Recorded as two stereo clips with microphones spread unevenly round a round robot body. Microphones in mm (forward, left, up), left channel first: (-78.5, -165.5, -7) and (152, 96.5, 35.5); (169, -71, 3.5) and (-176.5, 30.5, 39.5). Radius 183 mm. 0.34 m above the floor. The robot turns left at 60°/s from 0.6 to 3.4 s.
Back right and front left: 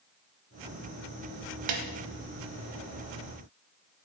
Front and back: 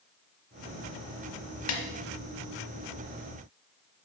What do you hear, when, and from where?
1.7 s a snare drum: 30° left, 1.1 m; by 1.8 s 20° left, 1.1 m